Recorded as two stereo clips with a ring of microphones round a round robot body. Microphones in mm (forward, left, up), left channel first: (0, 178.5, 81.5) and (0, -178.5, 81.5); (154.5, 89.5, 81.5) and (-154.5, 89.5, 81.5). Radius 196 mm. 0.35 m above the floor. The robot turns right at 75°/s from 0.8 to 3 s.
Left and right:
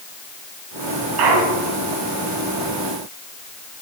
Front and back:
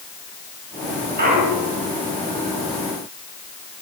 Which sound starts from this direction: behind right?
A clunk, at 1.2 s.